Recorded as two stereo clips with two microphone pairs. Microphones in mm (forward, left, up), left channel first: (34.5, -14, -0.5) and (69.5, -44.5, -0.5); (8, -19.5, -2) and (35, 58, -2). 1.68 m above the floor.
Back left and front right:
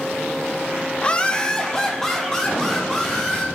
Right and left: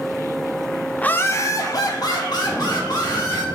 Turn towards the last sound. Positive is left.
turn(degrees=-135)